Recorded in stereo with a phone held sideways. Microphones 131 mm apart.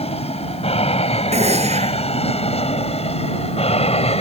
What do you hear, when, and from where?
0.0 s an aircraft: 50° left (ahead or behind)
1.3 s a gunshot: 55° right (ahead or behind)